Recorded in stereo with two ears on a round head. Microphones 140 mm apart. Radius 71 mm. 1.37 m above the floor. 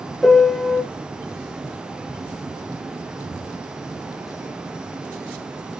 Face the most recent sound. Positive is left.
turn(degrees=0)  # may be behind; listen again after turning